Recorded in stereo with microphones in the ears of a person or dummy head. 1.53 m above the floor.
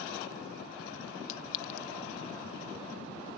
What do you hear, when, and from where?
1.3 s a clink: 50° left (ahead or behind)